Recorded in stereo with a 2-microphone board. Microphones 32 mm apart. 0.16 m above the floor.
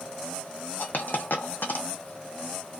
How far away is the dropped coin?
About 0.6 m.